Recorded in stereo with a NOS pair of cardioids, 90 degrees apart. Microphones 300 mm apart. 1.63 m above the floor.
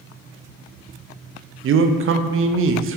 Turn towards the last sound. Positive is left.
turn(degrees=-45)